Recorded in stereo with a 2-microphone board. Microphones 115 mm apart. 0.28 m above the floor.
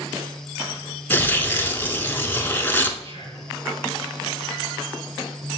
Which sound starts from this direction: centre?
Tearing paper, at 1.1 s.